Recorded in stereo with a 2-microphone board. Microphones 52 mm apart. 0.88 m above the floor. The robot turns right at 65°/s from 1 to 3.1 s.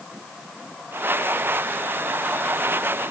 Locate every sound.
Only background noise.